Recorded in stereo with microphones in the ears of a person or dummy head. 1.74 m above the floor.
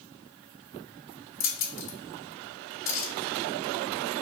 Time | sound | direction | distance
1.4 | keys jangling | 45° left (ahead or behind) | 1.1 m